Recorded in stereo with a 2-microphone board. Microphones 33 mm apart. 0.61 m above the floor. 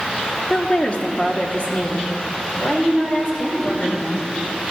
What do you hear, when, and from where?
0.5 s a woman speaking: 25° left (ahead or behind), 1.2 m; by 4.3 s 40° left (ahead or behind), 4 m